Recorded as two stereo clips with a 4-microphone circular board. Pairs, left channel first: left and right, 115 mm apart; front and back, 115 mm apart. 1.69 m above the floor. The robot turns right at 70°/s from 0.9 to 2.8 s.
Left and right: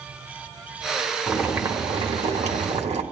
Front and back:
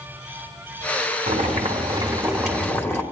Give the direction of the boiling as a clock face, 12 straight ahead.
6 o'clock.